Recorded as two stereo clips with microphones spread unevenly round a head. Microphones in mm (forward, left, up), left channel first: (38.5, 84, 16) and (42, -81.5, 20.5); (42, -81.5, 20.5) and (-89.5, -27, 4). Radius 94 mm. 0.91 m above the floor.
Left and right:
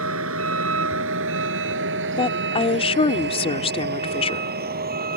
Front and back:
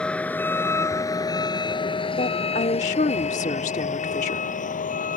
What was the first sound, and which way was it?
A vehicle, 105° right.